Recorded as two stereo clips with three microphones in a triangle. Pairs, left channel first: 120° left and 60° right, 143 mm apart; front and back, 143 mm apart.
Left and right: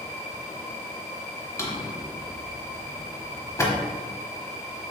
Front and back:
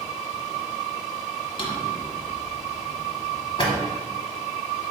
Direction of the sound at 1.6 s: 50° left.